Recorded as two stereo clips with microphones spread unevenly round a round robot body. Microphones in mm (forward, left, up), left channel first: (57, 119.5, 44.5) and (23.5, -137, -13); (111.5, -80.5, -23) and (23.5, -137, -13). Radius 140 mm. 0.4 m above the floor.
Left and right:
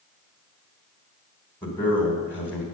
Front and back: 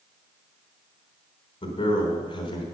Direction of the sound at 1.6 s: 5° right.